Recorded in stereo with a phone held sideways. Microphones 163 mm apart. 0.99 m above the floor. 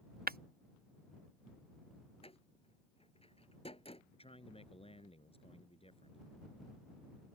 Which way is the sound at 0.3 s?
65° right (ahead or behind).